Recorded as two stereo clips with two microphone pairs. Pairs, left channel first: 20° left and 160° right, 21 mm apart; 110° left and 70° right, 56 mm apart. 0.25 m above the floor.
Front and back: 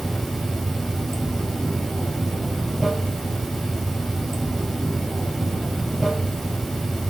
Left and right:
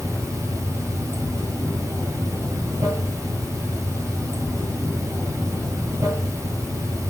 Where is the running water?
65° right, 1.1 m.